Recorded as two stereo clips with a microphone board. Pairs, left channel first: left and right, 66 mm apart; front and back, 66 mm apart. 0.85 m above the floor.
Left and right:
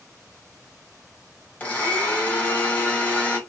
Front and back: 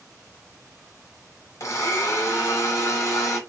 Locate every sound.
1.6 s a blender: 25° left, 1.1 m